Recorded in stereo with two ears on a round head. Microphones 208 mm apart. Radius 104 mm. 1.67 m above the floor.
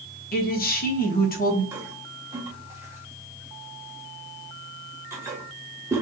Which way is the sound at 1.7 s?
10° right (ahead or behind).